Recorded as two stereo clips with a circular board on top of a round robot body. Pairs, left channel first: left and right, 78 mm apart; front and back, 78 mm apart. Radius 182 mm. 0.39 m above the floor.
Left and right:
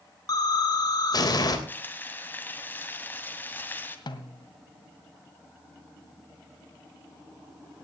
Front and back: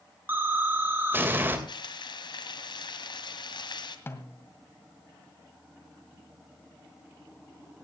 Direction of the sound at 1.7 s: 25° left.